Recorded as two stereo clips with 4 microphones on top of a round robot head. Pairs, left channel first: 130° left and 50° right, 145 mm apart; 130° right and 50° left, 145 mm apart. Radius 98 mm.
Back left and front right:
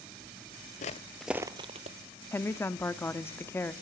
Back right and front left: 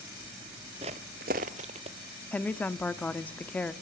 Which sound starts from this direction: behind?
A woman speaking, at 2.3 s.